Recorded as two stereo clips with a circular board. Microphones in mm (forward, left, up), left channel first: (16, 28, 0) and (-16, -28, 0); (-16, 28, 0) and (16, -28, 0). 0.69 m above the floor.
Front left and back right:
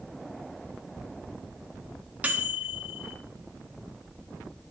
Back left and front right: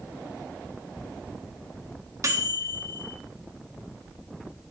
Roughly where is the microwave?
Ahead right.